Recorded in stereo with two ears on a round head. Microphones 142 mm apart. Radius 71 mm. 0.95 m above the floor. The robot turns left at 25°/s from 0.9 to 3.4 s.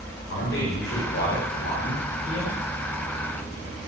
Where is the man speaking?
110° left, 3.5 m; by 2.6 s 65° left, 3.5 m.